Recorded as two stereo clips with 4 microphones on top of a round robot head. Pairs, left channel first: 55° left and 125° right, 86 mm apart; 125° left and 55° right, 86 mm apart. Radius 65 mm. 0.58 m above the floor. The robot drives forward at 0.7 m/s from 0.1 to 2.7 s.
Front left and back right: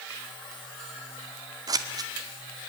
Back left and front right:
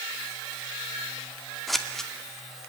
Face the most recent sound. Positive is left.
turn(degrees=-160)